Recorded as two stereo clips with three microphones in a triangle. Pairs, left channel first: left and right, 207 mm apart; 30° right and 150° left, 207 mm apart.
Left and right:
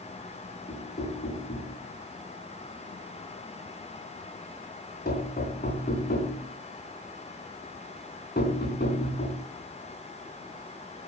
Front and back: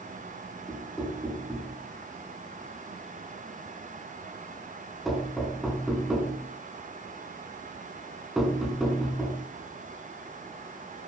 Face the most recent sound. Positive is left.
turn(degrees=60)